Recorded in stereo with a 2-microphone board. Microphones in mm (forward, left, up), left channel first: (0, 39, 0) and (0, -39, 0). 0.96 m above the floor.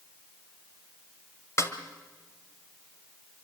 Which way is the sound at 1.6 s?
40° left (ahead or behind).